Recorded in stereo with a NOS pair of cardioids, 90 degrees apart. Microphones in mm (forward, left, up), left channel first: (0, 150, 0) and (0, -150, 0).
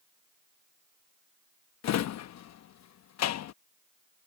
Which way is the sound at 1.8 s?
65° left.